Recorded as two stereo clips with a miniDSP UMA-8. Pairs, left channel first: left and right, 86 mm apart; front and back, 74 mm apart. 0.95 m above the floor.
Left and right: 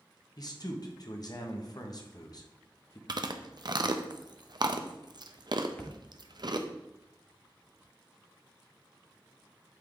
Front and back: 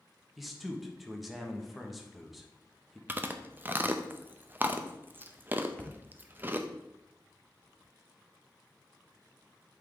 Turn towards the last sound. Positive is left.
turn(degrees=50)